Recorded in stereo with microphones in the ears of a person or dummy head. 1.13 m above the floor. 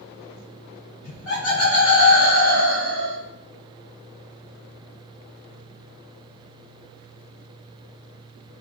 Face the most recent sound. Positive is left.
turn(degrees=60)  # may be behind; listen again after turning